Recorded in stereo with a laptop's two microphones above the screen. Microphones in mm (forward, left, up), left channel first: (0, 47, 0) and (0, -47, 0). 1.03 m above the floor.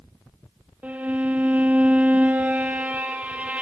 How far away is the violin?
About 0.7 m.